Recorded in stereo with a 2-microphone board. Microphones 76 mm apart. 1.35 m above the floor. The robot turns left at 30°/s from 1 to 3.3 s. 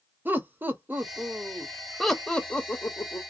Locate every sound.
0.2 s laughter: 25° right (ahead or behind), 0.8 m; by 3.2 s 35° left (ahead or behind), 0.8 m